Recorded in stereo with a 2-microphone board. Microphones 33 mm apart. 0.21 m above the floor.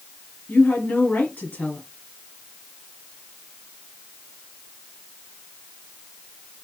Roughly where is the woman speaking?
Left.